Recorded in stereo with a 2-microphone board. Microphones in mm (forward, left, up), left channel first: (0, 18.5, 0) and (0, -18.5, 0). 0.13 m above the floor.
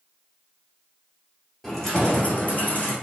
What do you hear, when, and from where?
1.6 s keys jangling: 10° left (ahead or behind), 1.5 m; by 2.9 s 50° left (ahead or behind), 2.5 m